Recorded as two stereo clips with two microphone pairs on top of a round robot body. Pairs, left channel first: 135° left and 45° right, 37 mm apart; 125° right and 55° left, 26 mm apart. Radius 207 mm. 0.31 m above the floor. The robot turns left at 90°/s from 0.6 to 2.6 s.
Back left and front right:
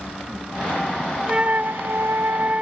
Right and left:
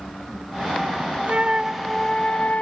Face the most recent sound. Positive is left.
turn(degrees=-100)